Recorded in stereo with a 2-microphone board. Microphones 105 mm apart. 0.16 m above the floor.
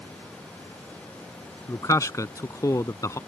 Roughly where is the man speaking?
Left.